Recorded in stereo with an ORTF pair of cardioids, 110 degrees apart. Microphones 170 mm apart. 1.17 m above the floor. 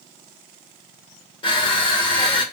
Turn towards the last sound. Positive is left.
turn(degrees=30)